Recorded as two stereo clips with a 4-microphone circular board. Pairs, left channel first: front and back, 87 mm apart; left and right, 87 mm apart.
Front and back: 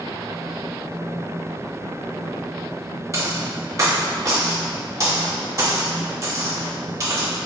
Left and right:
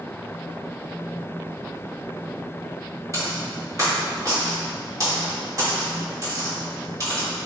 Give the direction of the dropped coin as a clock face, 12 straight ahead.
4 o'clock.